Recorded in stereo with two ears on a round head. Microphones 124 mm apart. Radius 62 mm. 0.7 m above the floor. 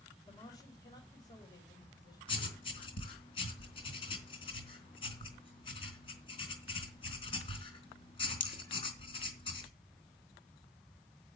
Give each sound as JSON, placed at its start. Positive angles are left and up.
{"t": 0.3, "sound": "a man speaking", "side_deg": 30, "distance_m": 3.5}
{"t": 2.3, "sound": "writing", "side_deg": 40, "distance_m": 3.5}